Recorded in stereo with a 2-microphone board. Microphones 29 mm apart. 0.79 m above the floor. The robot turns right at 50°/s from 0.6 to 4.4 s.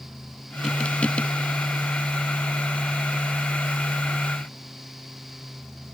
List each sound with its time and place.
Only background noise.